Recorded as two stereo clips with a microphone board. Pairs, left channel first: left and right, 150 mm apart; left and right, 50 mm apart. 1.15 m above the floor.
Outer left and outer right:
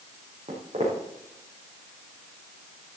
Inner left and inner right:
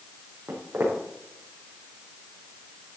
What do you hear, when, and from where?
0.5 s footsteps: 55° right (ahead or behind), 4 m